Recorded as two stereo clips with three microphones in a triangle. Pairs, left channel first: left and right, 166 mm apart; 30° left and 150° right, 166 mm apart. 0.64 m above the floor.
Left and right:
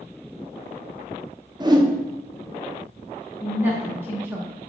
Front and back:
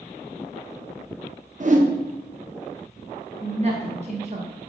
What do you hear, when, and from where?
1.6 s a whoosh: 150° right, 0.6 m
3.4 s a woman speaking: 165° right, 0.7 m